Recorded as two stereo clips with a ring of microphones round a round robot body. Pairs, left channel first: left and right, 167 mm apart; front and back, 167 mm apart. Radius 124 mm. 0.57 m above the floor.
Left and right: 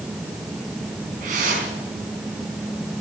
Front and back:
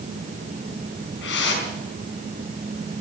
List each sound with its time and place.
1.2 s a whoosh: 30° right, 4 m